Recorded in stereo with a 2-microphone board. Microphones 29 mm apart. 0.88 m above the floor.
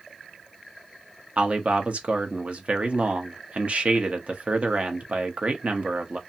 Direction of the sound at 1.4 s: 45° right (ahead or behind).